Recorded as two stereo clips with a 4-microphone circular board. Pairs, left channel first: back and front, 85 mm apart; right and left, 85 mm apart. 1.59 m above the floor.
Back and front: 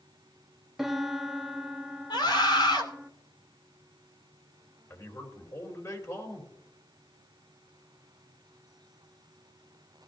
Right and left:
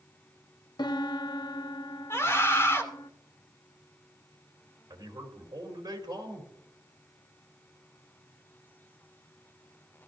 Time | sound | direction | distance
0.8 | a piano | 85° right | 0.7 m
2.1 | a scream | 150° right | 3 m
4.9 | a man speaking | 130° left | 3 m